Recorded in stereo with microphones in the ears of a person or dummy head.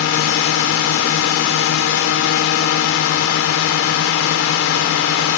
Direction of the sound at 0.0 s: 65° left (ahead or behind).